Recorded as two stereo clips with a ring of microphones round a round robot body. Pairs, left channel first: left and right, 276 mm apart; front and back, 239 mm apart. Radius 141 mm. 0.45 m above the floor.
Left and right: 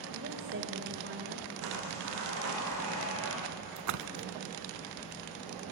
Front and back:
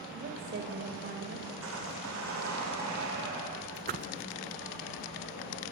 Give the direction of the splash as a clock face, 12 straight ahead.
4 o'clock.